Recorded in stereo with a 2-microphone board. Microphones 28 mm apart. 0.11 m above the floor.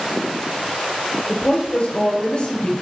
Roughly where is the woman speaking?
Left.